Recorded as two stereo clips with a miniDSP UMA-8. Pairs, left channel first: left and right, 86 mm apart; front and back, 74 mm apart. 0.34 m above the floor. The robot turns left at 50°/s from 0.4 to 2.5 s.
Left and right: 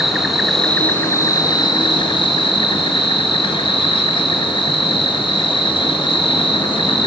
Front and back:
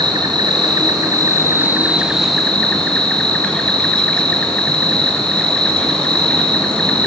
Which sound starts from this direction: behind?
An insect, at 0.0 s.